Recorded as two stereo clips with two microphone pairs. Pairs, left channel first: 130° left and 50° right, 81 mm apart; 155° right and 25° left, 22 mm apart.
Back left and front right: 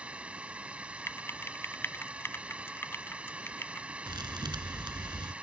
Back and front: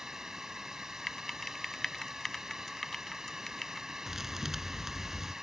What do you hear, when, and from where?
0.0 s a drone: 5° left
1.1 s typing on a keyboard: 145° left
4.1 s a thud: 45° right